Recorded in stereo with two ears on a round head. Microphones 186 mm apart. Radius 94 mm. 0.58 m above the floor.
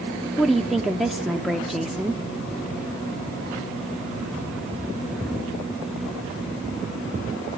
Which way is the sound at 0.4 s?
Centre (ahead or behind).